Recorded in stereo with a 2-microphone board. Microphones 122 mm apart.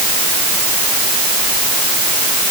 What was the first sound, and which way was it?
Only background noise.